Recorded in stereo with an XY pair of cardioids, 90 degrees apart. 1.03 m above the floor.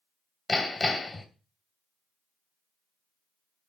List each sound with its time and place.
0.5 s hammering: 40° left, 2 m